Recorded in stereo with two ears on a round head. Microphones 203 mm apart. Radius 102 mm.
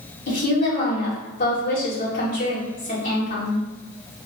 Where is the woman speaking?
40° left (ahead or behind), 2.0 m.